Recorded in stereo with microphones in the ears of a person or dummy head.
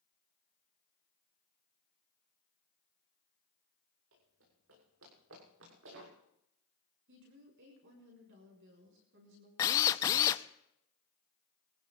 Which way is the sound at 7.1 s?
60° right (ahead or behind).